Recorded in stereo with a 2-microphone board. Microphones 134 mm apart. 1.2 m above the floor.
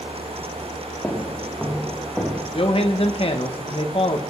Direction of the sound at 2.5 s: 50° left (ahead or behind).